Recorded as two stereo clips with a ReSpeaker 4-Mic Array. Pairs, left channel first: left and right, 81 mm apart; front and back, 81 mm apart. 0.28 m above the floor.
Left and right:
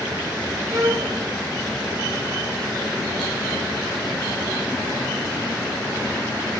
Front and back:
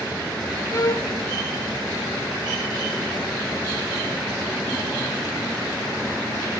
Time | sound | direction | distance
0.7 | a violin | 50° right | 1.0 m